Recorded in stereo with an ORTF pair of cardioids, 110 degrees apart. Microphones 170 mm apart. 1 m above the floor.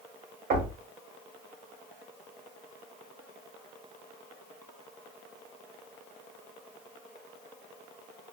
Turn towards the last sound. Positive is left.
turn(degrees=-65)